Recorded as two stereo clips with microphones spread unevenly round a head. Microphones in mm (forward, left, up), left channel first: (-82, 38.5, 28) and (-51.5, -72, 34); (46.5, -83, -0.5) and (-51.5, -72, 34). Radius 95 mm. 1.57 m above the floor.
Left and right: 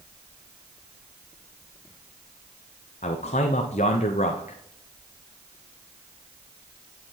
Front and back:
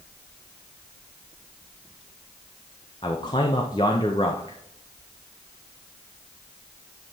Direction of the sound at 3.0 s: 55° left.